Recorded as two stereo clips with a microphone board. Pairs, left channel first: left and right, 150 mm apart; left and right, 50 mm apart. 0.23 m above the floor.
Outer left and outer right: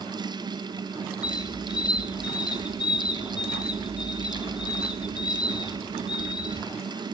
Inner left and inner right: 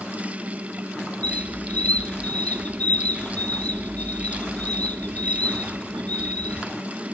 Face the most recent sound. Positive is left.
turn(degrees=30)  # may be behind; listen again after turning